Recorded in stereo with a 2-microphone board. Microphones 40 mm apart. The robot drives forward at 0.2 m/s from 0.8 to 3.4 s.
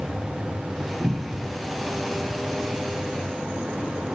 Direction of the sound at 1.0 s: 25° right (ahead or behind).